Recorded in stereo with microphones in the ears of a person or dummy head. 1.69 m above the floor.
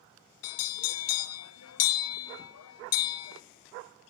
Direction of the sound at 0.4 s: 85° left.